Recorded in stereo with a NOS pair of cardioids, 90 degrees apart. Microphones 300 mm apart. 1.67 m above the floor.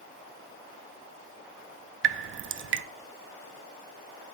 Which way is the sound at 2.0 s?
40° right.